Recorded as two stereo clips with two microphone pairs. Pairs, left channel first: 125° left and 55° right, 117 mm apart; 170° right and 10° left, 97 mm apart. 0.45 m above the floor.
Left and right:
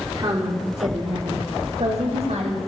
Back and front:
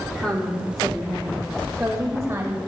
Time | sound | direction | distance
0.1 | a woman speaking | 95° right | 1.7 m